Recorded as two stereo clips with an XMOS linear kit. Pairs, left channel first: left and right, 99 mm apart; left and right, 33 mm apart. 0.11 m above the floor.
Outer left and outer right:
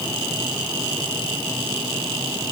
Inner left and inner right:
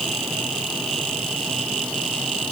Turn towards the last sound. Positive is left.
No sound to turn to.